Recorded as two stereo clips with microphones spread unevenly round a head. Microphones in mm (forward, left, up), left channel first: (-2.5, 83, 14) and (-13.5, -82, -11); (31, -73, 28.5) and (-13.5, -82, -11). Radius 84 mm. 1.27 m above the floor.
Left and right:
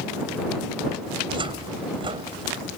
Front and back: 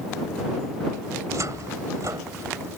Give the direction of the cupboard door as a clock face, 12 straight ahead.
5 o'clock.